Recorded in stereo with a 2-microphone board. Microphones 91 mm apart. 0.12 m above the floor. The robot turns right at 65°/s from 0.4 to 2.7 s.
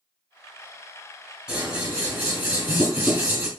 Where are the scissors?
5° right (ahead or behind), 1.8 m; by 3.5 s 20° right (ahead or behind), 1.8 m.